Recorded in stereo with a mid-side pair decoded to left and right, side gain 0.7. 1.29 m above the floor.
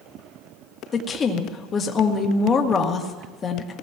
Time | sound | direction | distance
0.9 | a woman speaking | 30° left | 2 m